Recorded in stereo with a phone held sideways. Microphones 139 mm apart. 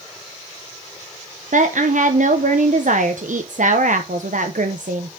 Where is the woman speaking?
70° right (ahead or behind), 0.9 m.